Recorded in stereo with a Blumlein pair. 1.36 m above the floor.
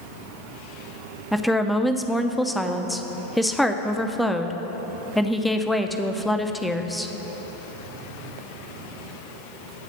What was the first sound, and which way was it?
A woman speaking, straight ahead.